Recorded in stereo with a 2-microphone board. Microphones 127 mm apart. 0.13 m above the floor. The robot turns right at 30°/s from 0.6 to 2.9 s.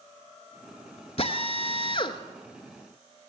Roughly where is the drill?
Left.